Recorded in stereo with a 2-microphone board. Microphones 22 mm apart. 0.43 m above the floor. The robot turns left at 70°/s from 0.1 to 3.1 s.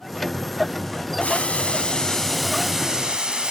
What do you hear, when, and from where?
1.2 s boiling: 85° left, 3 m; by 3.5 s 45° right, 3 m